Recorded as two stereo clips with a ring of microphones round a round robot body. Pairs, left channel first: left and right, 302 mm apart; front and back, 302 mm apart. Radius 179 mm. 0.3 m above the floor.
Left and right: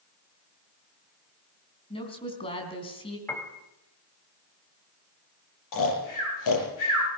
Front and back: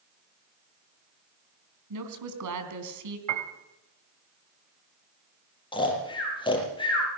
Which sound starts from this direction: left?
Snoring, at 5.7 s.